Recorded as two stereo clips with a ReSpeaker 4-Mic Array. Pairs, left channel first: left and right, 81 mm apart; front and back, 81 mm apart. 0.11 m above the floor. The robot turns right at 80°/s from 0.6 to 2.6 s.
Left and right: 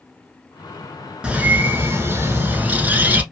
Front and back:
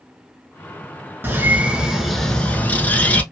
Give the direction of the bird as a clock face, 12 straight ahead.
5 o'clock.